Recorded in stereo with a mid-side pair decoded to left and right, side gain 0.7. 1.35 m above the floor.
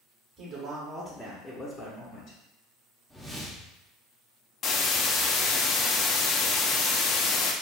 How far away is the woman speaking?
About 1.1 m.